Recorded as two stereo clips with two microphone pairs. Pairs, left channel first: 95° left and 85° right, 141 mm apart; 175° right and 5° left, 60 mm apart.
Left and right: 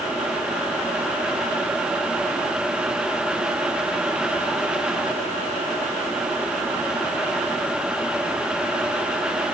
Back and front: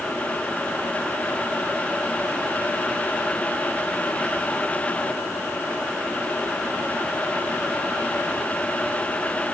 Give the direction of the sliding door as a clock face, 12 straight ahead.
No sliding door in this recording.